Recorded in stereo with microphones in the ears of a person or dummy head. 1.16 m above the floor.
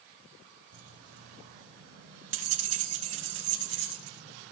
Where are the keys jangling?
75° right (ahead or behind), 6.5 m; by 4.5 s 60° right (ahead or behind), 7.5 m.